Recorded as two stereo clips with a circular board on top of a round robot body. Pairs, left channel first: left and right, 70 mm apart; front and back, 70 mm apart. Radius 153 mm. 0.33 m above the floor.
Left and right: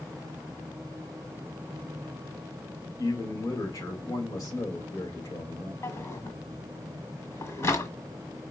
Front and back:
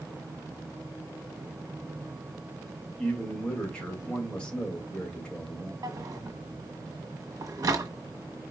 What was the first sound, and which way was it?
A man speaking, 75° left.